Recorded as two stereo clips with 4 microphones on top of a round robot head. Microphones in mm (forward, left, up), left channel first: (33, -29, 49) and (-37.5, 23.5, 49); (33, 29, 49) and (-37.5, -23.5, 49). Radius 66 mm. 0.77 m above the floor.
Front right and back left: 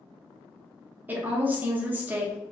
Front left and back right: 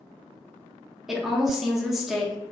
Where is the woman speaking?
135° left, 0.6 m.